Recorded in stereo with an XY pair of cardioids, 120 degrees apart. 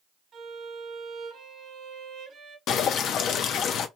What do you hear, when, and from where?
0.3 s a violin: 45° right, 1.0 m
2.7 s dripping: 65° left, 0.5 m